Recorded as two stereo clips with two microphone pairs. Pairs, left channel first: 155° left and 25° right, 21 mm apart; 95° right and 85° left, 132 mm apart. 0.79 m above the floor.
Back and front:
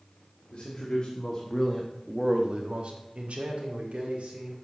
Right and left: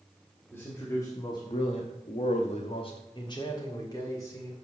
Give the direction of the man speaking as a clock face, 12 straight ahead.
6 o'clock.